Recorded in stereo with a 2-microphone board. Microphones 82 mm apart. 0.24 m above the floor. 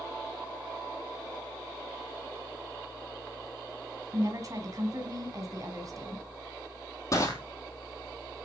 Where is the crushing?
40° left (ahead or behind), 3 m.